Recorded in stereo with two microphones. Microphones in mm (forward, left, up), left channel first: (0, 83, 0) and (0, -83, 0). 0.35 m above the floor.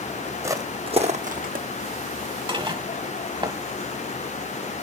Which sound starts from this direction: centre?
Footsteps, at 0.4 s.